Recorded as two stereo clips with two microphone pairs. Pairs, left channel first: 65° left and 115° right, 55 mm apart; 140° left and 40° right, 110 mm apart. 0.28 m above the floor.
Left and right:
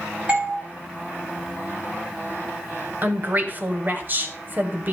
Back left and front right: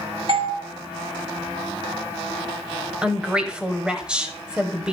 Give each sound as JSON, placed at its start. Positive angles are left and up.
{"t": 0.3, "sound": "a doorbell", "azimuth_deg": -55, "distance_m": 3.0}
{"t": 3.0, "sound": "a woman speaking", "azimuth_deg": -120, "distance_m": 1.2}